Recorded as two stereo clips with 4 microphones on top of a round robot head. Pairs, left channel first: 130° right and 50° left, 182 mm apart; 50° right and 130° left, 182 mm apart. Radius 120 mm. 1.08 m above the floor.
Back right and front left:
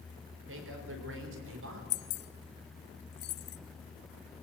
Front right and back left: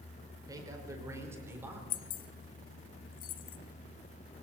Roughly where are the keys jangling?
Right.